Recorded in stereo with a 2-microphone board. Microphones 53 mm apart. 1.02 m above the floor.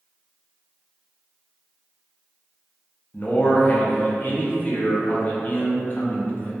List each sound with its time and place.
3.1 s a man speaking: 35° left (ahead or behind), 0.5 m